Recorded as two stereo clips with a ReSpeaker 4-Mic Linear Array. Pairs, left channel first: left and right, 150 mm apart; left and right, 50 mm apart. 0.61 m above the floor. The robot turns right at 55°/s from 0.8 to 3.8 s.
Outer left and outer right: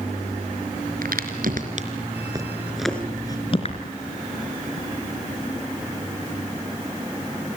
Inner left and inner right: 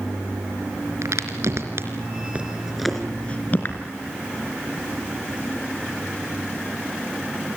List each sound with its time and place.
1.0 s a crack: 80° right, 3.5 m; by 3.8 s 55° left (ahead or behind), 3.5 m